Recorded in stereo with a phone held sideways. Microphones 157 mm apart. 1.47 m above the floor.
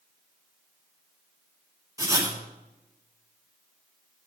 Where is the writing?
20° right (ahead or behind), 6 m.